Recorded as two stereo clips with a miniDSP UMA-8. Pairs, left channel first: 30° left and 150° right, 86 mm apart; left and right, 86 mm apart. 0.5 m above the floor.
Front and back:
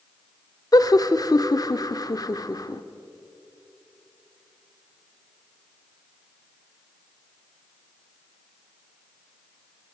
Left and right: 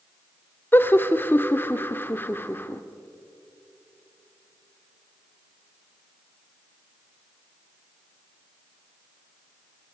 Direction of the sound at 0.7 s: 35° left.